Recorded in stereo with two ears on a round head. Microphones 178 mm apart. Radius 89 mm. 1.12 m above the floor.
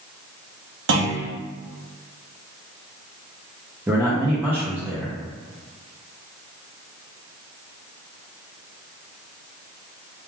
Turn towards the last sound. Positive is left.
turn(degrees=-10)  # may be behind; listen again after turning